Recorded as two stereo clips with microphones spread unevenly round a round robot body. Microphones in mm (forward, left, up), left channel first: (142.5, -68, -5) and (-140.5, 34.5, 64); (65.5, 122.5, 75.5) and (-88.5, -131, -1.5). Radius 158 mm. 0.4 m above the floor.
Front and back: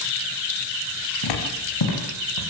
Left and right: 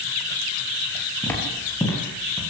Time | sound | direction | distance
1.2 | footsteps | 25° right | 8.5 m